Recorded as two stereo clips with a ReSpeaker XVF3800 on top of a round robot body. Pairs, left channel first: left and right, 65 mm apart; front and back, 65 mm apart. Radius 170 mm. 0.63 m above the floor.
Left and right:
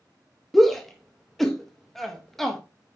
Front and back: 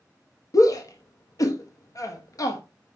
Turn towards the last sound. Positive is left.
turn(degrees=5)